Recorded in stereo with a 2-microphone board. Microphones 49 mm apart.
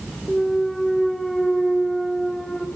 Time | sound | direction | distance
0.3 | a clunk | 10° left (ahead or behind) | 1.5 m